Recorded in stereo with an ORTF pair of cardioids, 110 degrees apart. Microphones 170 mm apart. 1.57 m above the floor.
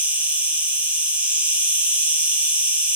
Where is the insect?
10° right, 2.5 m.